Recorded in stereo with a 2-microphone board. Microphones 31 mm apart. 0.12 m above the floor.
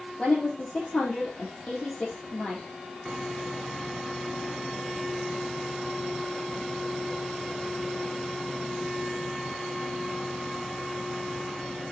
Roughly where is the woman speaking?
Left.